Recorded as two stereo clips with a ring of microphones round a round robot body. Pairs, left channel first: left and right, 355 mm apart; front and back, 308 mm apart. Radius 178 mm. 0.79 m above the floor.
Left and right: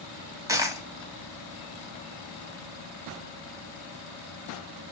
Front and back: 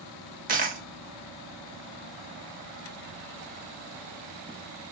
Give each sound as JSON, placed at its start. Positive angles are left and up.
{"t": 0.5, "sound": "a dropped coin", "azimuth_deg": -160, "distance_m": 0.6}